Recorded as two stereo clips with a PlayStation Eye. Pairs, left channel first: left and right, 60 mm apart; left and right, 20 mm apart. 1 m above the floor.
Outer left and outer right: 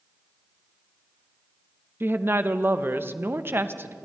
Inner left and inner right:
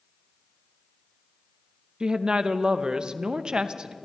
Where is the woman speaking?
40° right (ahead or behind), 0.7 m.